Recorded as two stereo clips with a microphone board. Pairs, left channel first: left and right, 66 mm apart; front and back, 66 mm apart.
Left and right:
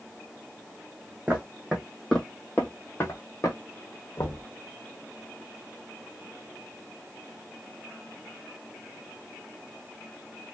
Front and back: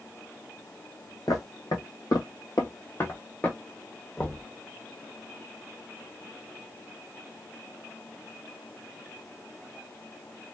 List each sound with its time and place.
1.3 s footsteps: 20° right, 1.4 m; by 3.6 s 65° left, 1.3 m
4.2 s knocking: 65° left, 0.7 m